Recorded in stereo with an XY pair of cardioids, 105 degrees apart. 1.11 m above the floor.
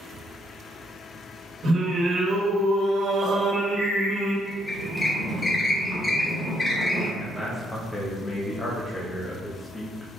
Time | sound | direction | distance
1.6 | singing | 60° right | 1.5 m
4.5 | a squeak | 25° left | 0.9 m
7.2 | a man speaking | 15° left | 0.7 m